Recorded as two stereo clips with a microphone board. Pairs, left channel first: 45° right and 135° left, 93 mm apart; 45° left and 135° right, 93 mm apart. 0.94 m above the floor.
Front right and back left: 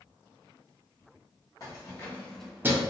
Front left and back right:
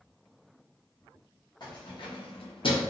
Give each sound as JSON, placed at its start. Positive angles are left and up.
{"t": 1.6, "sound": "keys jangling", "azimuth_deg": 5, "distance_m": 1.1}